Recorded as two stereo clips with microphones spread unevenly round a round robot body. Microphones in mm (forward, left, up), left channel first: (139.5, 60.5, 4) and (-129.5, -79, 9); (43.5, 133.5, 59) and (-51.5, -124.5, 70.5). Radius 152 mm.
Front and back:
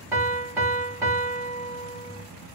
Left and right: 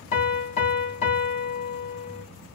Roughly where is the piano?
Behind left.